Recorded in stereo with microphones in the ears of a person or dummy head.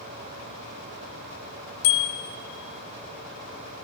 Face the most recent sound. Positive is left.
turn(degrees=60)  # may be behind; listen again after turning